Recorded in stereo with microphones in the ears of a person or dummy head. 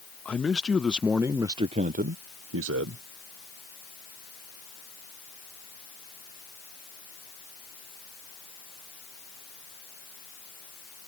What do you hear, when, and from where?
0.2 s a man speaking: 10° left (ahead or behind); by 3.0 s 65° right (ahead or behind)